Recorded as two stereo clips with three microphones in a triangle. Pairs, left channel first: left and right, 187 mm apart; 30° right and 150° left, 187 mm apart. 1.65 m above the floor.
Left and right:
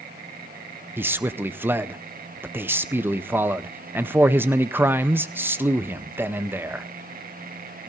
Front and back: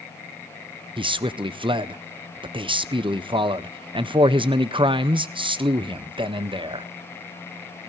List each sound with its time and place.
1.0 s a man speaking: 160° right, 0.6 m